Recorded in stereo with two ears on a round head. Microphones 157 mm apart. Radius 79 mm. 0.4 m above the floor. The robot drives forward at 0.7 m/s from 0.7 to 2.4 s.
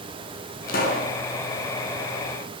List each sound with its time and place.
0.7 s a pop: 55° left (ahead or behind), 5.5 m